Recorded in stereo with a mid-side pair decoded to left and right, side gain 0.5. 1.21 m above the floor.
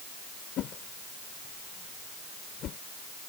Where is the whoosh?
60° left.